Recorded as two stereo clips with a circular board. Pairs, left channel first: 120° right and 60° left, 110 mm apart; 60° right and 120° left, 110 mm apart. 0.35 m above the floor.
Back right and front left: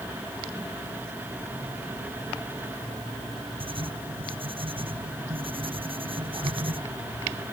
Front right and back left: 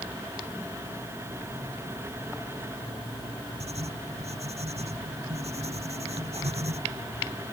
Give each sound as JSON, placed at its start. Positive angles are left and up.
{"t": 3.6, "sound": "writing", "azimuth_deg": 100}